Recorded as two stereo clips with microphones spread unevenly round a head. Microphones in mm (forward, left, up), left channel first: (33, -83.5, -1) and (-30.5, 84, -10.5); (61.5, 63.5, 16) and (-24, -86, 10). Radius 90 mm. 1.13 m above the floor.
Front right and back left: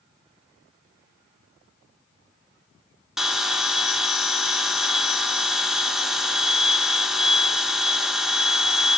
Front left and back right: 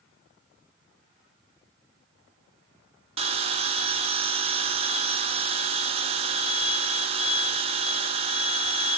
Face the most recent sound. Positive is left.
turn(degrees=-160)